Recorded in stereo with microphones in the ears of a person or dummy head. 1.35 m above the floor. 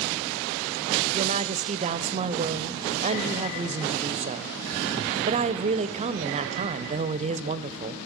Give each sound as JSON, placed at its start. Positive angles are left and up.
{"t": 1.1, "sound": "a woman speaking", "side_deg": -35, "distance_m": 0.5}